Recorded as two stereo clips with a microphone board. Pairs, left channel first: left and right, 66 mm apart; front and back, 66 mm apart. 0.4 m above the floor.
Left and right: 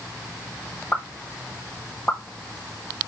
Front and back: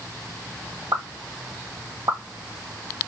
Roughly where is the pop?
Behind left.